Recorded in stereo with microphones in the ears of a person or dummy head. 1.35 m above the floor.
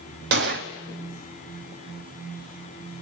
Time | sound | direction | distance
0.3 | a gunshot | 60° right (ahead or behind) | 1.2 m